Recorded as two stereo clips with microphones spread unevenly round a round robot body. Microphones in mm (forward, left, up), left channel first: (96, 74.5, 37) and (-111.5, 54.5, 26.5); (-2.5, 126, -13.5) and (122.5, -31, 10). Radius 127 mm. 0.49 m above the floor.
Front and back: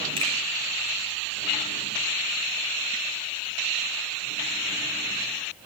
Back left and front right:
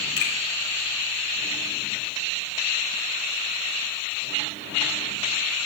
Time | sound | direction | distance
0.2 | a finger snap | 125° left | 7.5 m